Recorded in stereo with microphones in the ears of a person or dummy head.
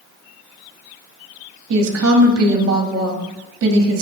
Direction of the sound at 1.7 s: 70° right (ahead or behind).